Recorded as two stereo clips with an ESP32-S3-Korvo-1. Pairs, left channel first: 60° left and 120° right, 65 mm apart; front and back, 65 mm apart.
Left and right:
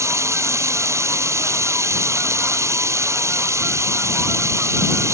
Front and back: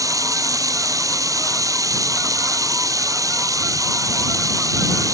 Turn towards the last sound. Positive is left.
turn(degrees=-160)